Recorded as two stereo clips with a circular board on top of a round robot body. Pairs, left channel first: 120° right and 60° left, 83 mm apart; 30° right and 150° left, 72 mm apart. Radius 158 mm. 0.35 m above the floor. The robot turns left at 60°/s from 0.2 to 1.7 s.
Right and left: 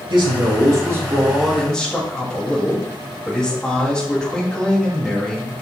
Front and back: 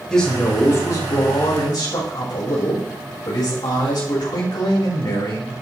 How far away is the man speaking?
About 3.5 m.